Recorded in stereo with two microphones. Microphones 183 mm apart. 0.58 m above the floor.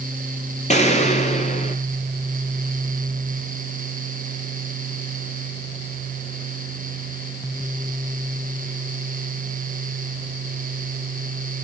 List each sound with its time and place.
0.7 s an explosion: 40° left (ahead or behind), 4.5 m